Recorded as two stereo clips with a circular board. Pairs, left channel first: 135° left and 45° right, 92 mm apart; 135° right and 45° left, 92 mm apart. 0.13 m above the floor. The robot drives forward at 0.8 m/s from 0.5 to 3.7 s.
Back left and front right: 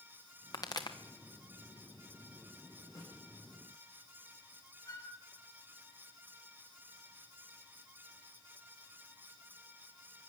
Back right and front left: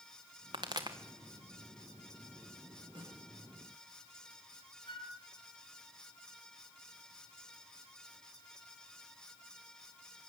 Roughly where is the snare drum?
Left.